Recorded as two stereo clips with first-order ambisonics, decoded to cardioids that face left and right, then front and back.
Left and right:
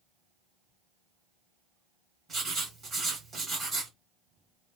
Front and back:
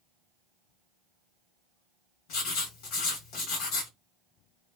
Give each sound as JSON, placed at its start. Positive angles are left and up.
{"t": 2.3, "sound": "writing", "azimuth_deg": -15, "distance_m": 1.6}